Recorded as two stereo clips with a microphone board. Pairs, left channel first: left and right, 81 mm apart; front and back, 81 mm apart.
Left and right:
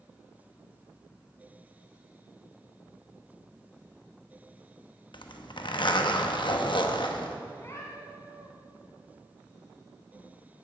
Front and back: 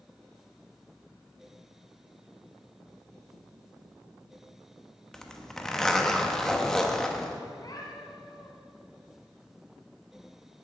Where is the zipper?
85° left, 0.9 m.